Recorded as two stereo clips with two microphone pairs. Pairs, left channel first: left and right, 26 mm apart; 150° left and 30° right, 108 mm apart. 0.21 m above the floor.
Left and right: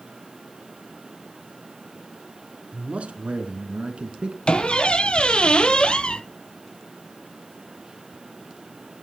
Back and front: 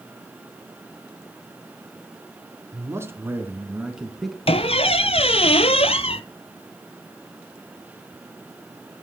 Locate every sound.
2.7 s a man speaking: 85° right, 2 m; by 4.4 s 120° right, 1.8 m
4.5 s a squeak: 135° left, 0.6 m